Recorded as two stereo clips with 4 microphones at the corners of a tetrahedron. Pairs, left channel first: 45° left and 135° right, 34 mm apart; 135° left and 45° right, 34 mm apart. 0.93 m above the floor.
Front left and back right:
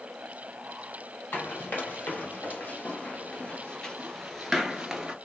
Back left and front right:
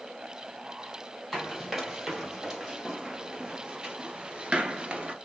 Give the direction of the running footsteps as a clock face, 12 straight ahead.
11 o'clock.